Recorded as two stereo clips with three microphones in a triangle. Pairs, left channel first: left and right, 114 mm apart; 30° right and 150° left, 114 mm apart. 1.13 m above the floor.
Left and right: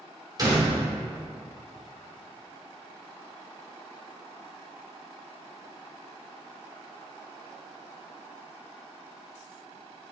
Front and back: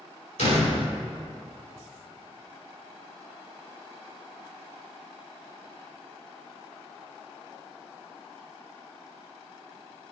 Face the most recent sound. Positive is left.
turn(degrees=-35)